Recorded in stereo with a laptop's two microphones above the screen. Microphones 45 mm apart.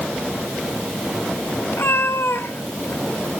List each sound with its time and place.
1.7 s a cat meowing: 75° left (ahead or behind), 2 m